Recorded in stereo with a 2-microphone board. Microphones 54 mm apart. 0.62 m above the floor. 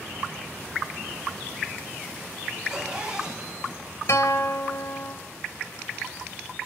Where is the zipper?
10° right (ahead or behind), 7 m.